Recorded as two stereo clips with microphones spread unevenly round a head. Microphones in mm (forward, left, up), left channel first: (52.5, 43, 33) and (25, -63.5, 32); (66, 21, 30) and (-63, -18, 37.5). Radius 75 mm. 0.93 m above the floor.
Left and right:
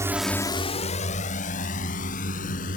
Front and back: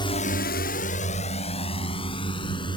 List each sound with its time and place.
0.0 s a drone: 40° right; by 2.8 s 75° left